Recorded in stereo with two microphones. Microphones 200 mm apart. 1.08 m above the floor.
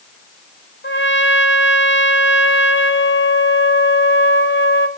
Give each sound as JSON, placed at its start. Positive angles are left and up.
{"t": 0.8, "sound": "a trumpet", "side_deg": 85, "distance_m": 1.4}